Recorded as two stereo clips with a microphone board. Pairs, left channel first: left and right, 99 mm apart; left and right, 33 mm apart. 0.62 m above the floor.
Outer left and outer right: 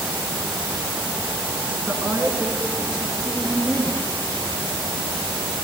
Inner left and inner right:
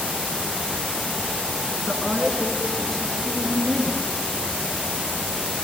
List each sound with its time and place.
1.9 s a woman speaking: 15° right (ahead or behind), 9 m; by 4.0 s 10° right (ahead or behind), 8.5 m